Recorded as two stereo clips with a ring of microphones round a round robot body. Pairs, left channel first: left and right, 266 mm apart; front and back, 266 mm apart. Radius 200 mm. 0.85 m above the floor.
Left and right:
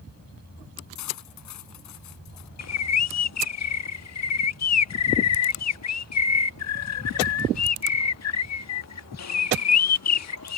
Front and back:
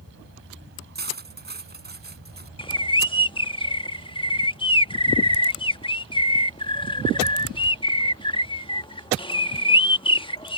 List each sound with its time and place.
0.9 s cutlery clinking: 125° left
2.6 s a bird: 70° left